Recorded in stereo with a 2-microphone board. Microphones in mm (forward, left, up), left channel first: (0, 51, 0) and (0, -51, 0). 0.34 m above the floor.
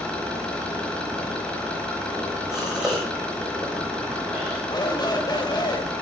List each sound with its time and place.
0.0 s an engine running: 10° left (ahead or behind), 4.5 m
2.5 s a gasp: 5° right (ahead or behind), 7 m
4.7 s a shout: 45° left (ahead or behind), 1.9 m